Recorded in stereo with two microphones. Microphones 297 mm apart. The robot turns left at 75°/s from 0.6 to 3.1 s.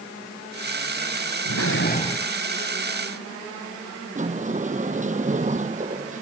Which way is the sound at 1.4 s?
65° left.